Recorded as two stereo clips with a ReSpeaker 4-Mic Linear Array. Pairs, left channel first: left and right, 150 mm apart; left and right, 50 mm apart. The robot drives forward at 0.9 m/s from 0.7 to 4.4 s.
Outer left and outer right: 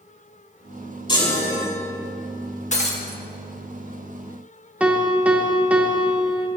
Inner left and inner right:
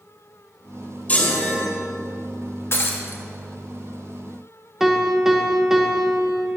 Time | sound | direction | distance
1.1 | a chime | 30° left (ahead or behind) | 4 m
2.7 | breaking glass | 45° left (ahead or behind) | 1.3 m
4.8 | a piano | 10° right (ahead or behind) | 1.1 m